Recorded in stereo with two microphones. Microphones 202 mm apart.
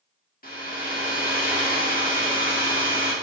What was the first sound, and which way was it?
A hair dryer, 45° left (ahead or behind).